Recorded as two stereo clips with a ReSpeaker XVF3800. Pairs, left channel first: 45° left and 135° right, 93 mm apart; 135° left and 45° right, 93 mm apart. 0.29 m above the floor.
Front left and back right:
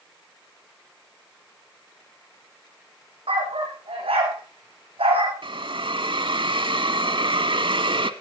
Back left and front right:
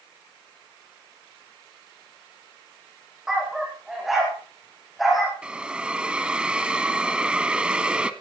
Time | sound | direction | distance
3.3 | a dog barking | 130° right | 7 m
5.4 | a hiss | 125° right | 1.2 m